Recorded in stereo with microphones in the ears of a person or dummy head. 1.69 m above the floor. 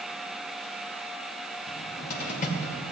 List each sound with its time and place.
1.7 s a cupboard door: 45° left (ahead or behind), 1.1 m